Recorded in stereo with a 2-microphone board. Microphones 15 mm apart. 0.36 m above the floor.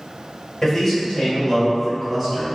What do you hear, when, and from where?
0.6 s a man speaking: 30° left (ahead or behind), 1.4 m; by 2.6 s centre (ahead or behind), 2.0 m